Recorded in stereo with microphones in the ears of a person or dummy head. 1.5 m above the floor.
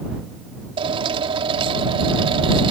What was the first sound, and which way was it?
A drill, 30° right (ahead or behind).